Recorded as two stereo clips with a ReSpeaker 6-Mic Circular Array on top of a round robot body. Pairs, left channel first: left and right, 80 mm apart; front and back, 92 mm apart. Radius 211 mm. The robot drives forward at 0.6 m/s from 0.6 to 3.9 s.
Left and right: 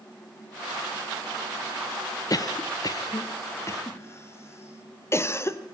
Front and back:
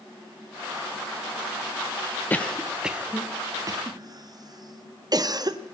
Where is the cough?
65° left, 0.9 m; by 5.6 s 140° left, 1.1 m.